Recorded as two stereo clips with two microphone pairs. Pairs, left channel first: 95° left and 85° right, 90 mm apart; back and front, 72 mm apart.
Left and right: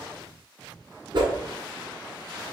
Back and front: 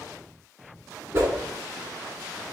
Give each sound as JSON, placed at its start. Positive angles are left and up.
{"t": 1.1, "sound": "a whoosh", "azimuth_deg": -55, "distance_m": 1.6}